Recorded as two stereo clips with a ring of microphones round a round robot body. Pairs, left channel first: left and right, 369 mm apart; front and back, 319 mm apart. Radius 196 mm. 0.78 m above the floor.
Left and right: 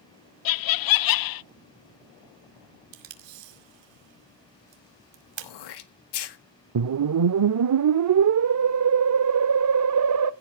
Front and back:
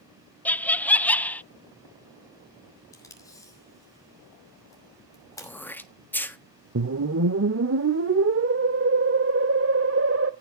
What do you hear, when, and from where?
0.5 s laughter: 85° left, 0.6 m
2.9 s tape being pulled: 80° right, 2.5 m
5.4 s throat clearing: 85° left, 1.6 m
6.8 s a whoosh: 130° right, 0.5 m